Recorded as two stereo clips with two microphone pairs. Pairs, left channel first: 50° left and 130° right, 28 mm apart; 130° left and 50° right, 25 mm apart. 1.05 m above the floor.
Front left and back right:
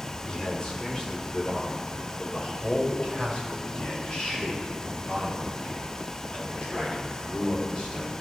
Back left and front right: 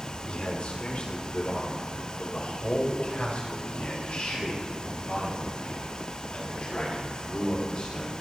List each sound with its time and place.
0.3 s a man speaking: 110° left, 3 m; by 8.1 s 100° left, 8.5 m